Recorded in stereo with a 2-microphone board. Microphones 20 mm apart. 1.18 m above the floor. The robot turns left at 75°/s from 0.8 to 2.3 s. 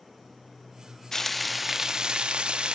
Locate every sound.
1.1 s frying: 25° left, 0.7 m; by 2.7 s 65° right, 0.7 m